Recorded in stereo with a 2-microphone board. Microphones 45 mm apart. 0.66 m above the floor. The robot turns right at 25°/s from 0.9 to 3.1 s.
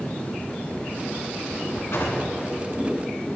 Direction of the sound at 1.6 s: 75° left (ahead or behind).